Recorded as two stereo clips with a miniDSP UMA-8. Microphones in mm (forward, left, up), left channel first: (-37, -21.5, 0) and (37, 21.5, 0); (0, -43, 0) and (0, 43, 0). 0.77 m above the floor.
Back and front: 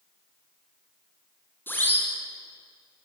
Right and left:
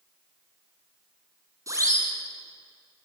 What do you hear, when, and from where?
1.7 s a siren: 145° left, 6.5 m